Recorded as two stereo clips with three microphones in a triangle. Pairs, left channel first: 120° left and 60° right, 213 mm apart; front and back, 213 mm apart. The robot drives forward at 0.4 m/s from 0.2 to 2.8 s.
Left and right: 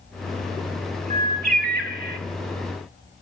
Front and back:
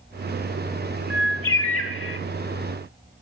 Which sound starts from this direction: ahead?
A bird, at 1.1 s.